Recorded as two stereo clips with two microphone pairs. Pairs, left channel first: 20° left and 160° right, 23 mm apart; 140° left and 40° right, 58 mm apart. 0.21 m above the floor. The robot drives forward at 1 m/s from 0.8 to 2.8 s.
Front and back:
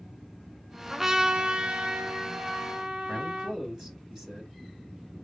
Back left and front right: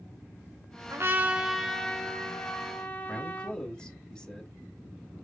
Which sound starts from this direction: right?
A trumpet, at 0.9 s.